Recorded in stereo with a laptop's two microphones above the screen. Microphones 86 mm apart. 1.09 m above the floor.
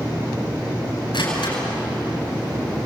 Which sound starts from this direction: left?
A door slam, at 1.1 s.